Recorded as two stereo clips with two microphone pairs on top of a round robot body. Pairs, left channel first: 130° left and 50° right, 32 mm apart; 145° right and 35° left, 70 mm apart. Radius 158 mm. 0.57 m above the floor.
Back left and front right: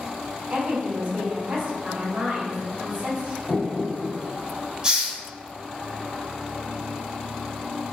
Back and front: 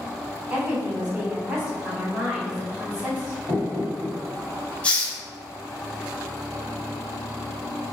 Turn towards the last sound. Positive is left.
turn(degrees=-75)